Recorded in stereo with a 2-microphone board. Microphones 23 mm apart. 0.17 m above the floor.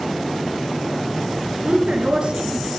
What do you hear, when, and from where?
1.6 s a woman speaking: 55° right (ahead or behind), 2.5 m; by 2.7 s 50° right (ahead or behind), 3 m